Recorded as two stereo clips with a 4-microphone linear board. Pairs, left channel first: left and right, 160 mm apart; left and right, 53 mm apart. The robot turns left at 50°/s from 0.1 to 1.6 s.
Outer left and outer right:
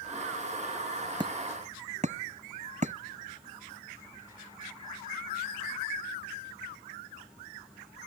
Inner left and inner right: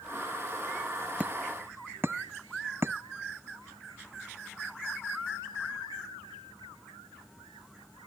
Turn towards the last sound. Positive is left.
turn(degrees=-45)  # may be behind; listen again after turning